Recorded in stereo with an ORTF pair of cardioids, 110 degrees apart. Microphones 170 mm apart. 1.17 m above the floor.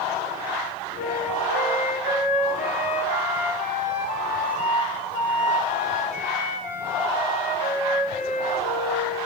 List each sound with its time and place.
1.0 s a flute: 50° left, 4.5 m